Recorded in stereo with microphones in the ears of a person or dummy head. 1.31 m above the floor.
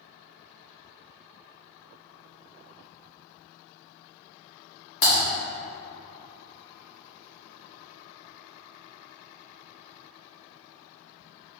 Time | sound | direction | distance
5.0 | typing on a keyboard | 60° left (ahead or behind) | 1.1 m